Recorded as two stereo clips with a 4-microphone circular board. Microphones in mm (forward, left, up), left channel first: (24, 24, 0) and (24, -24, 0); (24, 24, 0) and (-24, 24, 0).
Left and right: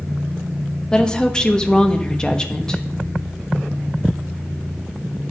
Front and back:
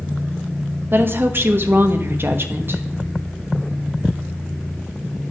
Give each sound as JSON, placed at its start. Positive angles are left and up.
{"t": 0.9, "sound": "a woman speaking", "azimuth_deg": 160, "distance_m": 1.0}